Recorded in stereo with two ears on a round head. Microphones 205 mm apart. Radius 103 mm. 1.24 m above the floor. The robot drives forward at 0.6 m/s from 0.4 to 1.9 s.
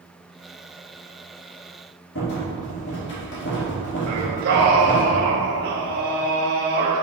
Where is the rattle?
55° left (ahead or behind), 2.0 m.